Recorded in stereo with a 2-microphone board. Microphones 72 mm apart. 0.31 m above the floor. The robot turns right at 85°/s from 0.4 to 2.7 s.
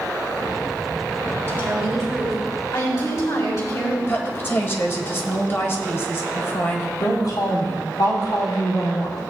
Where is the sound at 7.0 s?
65° left (ahead or behind), 3.5 m.